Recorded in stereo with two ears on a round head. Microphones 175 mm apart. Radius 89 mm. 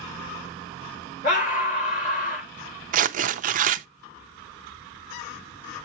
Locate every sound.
1.2 s a scream: 40° left (ahead or behind), 2.5 m
2.9 s tearing paper: 40° right (ahead or behind), 0.5 m